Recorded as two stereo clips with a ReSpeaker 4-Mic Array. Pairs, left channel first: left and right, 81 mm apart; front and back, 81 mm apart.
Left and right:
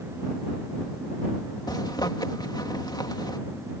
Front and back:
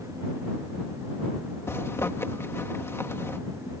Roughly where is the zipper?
Ahead left.